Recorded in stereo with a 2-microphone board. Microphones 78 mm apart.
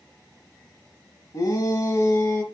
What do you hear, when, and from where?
1.3 s a shout: 50° left (ahead or behind), 2 m; by 2.4 s 35° left (ahead or behind), 2.5 m